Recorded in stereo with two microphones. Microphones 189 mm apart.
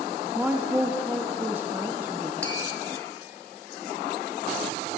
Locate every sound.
0.3 s a woman speaking: 10° right (ahead or behind), 0.5 m
2.4 s tapping: 75° left (ahead or behind), 2 m